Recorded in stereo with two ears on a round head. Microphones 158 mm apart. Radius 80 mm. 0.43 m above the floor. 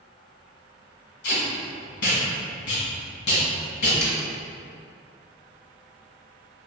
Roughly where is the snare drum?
Centre.